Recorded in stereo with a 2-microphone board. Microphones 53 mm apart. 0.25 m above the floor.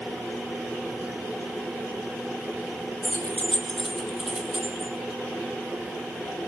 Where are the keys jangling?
40° left (ahead or behind), 1.4 m; by 4.9 s 20° right (ahead or behind), 2.5 m.